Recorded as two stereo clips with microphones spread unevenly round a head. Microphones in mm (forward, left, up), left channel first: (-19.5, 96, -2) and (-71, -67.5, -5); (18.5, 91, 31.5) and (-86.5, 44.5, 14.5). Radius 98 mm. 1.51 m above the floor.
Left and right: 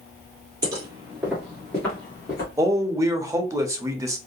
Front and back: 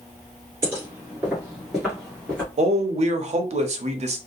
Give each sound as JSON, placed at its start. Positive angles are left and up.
{"t": 0.6, "sound": "footsteps", "azimuth_deg": -100, "distance_m": 1.5}
{"t": 2.6, "sound": "a man speaking", "azimuth_deg": 180, "distance_m": 0.7}